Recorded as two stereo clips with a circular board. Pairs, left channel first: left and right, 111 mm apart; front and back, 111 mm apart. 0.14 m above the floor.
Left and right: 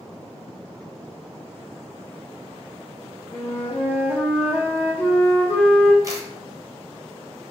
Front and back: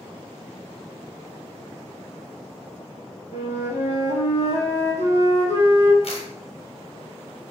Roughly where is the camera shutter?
Ahead right.